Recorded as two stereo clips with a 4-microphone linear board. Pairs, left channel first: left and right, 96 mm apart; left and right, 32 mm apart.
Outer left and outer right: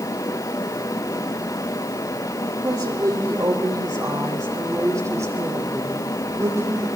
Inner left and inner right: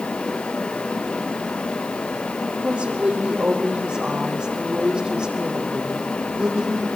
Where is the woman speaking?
45° right (ahead or behind), 5.5 m; by 6.9 s 25° right (ahead or behind), 8.5 m.